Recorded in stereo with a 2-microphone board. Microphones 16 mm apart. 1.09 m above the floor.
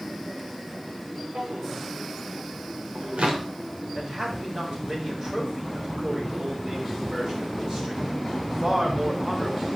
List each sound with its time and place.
1.4 s a drawer: 85° right, 3 m
4.0 s a man speaking: 45° right (ahead or behind), 5.5 m